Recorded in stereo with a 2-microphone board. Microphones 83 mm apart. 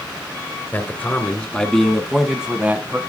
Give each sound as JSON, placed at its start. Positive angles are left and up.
{"t": 0.7, "sound": "a man speaking", "side_deg": 25, "distance_m": 2.5}